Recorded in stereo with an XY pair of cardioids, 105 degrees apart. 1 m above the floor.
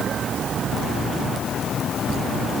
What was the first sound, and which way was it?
Only background noise.